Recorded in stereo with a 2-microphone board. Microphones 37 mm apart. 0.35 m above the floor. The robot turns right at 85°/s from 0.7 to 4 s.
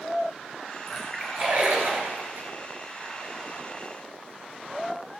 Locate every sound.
0.9 s a splash: 5° left (ahead or behind), 5.5 m; by 2.5 s 50° right (ahead or behind), 5.5 m